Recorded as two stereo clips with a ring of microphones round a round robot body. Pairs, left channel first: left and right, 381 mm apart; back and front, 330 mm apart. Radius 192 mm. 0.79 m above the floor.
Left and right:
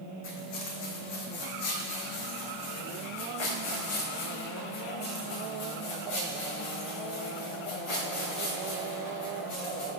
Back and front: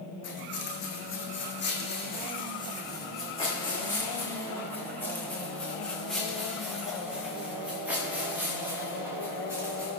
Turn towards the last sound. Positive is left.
turn(degrees=80)